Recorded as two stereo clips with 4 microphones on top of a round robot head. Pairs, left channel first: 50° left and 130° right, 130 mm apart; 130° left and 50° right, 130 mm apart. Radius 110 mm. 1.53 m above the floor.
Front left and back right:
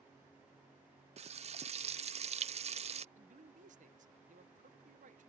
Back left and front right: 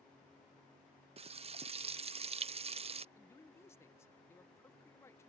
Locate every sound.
1.2 s frying: 90° right
3.1 s a man speaking: 160° right